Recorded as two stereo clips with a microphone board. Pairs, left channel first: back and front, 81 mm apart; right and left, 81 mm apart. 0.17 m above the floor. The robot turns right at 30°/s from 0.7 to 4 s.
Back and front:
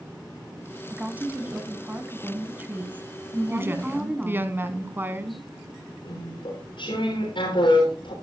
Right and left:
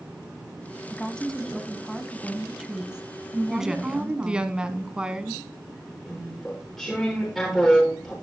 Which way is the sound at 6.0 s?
175° right.